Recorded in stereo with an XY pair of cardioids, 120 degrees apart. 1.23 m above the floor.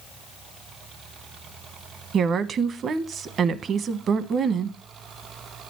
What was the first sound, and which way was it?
A woman speaking, 50° right.